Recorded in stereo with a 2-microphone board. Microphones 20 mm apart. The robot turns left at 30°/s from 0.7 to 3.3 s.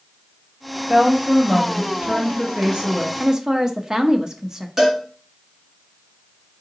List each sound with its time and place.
0.9 s a woman speaking: 80° right, 1.6 m; by 3.1 s 145° right, 1.6 m
3.2 s a woman speaking: 25° right (ahead or behind), 0.6 m
4.8 s a cowbell: 20° right (ahead or behind), 1.6 m